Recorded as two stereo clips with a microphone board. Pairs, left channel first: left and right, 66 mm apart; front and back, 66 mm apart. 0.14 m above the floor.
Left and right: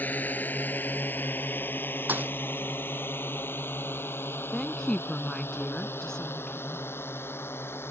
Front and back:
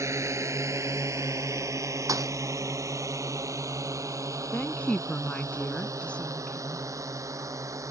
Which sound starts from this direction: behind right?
A thud, at 2.1 s.